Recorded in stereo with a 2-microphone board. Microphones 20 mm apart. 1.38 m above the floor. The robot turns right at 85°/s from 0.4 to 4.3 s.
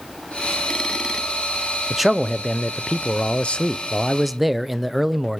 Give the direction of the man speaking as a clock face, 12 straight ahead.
1 o'clock.